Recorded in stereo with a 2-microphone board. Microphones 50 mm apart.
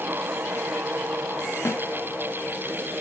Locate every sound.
1.6 s a snare drum: 65° left (ahead or behind), 2.5 m